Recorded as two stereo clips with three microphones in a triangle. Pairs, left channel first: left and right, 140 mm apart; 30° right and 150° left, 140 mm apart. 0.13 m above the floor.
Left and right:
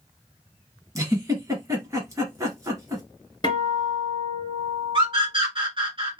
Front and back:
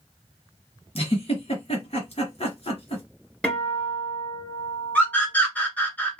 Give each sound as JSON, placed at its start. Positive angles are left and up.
{"t": 0.9, "sound": "a giggle", "azimuth_deg": -35, "distance_m": 1.9}
{"t": 3.4, "sound": "a guitar", "azimuth_deg": 50, "distance_m": 1.2}
{"t": 5.0, "sound": "a scream", "azimuth_deg": -105, "distance_m": 2.0}